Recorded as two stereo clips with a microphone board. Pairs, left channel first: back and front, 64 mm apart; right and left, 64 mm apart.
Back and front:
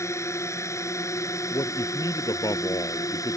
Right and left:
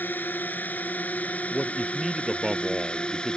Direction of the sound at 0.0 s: 150° right.